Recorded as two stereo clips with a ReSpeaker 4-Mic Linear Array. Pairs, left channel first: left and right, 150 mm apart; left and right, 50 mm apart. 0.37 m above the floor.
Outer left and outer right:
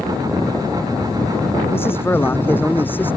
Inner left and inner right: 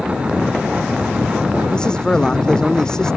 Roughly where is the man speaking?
Centre.